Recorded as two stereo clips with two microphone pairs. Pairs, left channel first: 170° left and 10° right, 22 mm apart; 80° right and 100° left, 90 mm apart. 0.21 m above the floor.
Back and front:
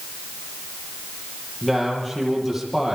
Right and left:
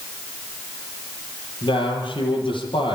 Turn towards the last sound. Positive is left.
turn(degrees=-105)